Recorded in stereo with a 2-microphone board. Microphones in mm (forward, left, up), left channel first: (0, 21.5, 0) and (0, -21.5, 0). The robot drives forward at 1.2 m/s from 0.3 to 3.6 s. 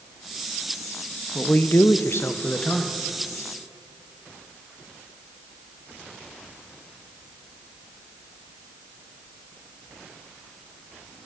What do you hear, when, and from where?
1.4 s a man speaking: 35° left (ahead or behind), 0.9 m; by 3.0 s 25° left (ahead or behind), 1.3 m